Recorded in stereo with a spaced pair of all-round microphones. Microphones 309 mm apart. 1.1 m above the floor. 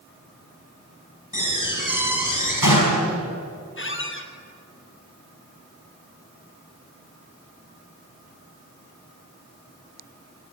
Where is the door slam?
85° left, 5 m.